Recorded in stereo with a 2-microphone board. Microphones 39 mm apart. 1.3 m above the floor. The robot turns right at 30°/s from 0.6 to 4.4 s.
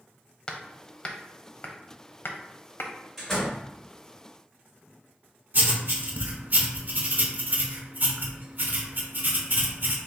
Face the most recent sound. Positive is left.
turn(degrees=-50)  # may be behind; listen again after turning